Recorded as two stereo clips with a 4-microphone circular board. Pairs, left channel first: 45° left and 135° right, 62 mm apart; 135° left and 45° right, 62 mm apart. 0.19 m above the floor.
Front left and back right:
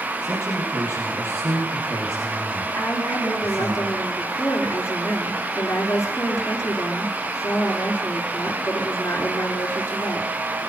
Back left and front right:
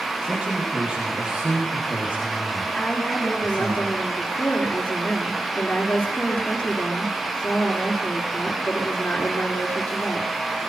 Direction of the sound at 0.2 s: 115° right.